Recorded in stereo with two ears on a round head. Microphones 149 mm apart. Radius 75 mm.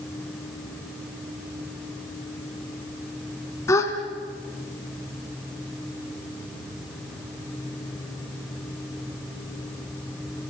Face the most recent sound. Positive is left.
turn(degrees=20)  # may be behind; listen again after turning